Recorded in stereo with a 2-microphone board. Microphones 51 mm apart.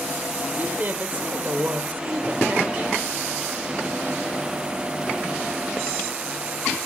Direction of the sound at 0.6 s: 35° right (ahead or behind).